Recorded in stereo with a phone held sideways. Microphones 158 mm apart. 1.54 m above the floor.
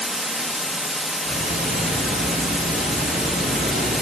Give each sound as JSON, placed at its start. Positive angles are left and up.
{"t": 0.0, "sound": "running water", "side_deg": 0, "distance_m": 1.0}
{"t": 1.2, "sound": "ticking", "side_deg": -75, "distance_m": 4.0}